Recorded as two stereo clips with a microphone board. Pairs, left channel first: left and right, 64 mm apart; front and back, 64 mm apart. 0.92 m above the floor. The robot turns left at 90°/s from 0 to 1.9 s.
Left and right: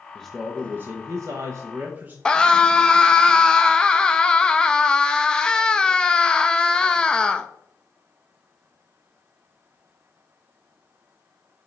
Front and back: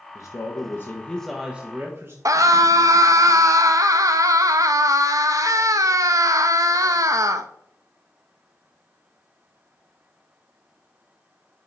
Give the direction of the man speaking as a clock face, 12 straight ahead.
12 o'clock.